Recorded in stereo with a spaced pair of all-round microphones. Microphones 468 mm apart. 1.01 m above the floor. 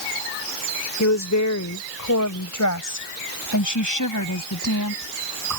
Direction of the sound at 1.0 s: 35° left (ahead or behind).